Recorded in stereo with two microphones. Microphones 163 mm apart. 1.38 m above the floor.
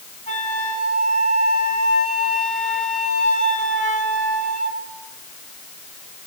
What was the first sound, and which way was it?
A flute, 55° left (ahead or behind).